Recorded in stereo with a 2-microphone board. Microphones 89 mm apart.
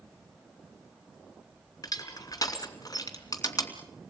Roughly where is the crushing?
Left.